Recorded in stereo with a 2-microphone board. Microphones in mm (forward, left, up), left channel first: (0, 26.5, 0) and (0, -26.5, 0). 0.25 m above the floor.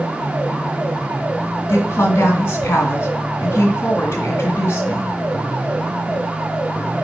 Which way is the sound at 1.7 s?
55° left (ahead or behind).